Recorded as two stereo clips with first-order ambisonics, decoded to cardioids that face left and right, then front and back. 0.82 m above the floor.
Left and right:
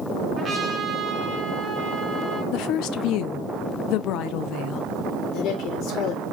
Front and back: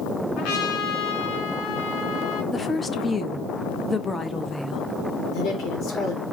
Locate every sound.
0.4 s a trumpet: 20° right, 2 m
2.5 s a woman speaking: 75° left, 0.7 m
5.3 s a woman speaking: 50° left, 3 m